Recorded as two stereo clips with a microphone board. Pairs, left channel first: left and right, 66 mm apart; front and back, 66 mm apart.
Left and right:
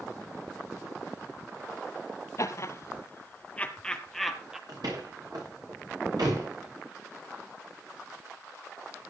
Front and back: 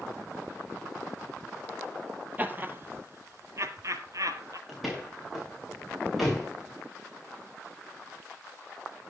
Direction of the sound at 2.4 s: 120° left.